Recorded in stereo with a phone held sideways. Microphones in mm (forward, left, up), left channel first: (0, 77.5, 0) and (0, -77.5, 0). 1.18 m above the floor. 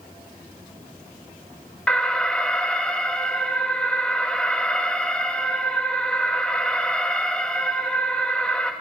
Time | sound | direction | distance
1.9 | an alarm | 5° left (ahead or behind) | 1.2 m